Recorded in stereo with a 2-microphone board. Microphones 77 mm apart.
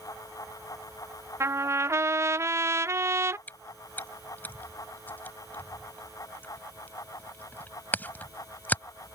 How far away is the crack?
I don't hear a crack.